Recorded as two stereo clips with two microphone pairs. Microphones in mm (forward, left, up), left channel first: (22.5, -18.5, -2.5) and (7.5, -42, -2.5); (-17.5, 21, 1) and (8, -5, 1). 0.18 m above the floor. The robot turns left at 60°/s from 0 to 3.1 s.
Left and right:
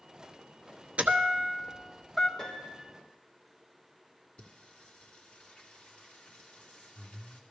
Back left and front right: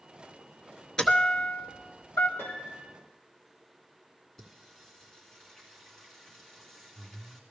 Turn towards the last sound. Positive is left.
turn(degrees=60)